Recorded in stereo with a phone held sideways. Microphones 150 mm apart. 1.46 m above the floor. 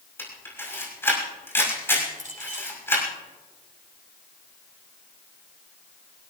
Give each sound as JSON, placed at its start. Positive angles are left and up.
{"t": 0.2, "sound": "a camera shutter", "side_deg": 15, "distance_m": 6.0}
{"t": 2.2, "sound": "a clink", "side_deg": -60, "distance_m": 6.0}